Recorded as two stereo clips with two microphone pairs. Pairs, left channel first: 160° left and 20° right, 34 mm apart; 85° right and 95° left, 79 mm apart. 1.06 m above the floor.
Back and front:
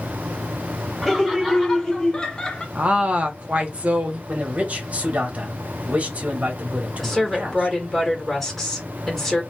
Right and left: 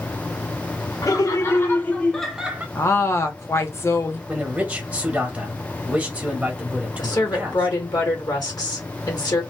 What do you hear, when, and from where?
1.0 s laughter: 120° right, 1.2 m; by 2.6 s 120° left, 0.7 m
2.8 s a woman speaking: 45° right, 0.8 m
4.3 s a man speaking: 20° left, 1.1 m
7.0 s a woman speaking: 115° right, 1.3 m